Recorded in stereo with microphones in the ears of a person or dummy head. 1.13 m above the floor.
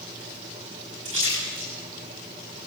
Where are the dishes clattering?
I don't hear dishes clattering.